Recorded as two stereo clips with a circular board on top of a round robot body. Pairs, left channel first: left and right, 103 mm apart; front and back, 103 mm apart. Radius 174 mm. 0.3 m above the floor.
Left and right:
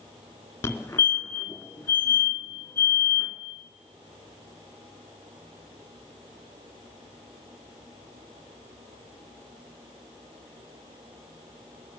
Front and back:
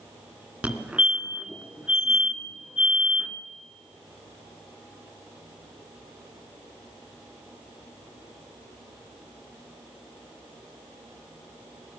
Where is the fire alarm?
125° left, 2.5 m.